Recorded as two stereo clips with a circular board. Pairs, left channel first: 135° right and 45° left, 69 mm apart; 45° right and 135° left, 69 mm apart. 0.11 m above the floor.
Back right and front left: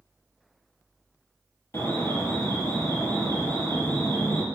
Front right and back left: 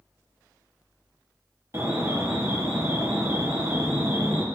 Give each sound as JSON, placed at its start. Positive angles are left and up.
{"t": 1.7, "sound": "an alarm", "azimuth_deg": 180, "distance_m": 2.5}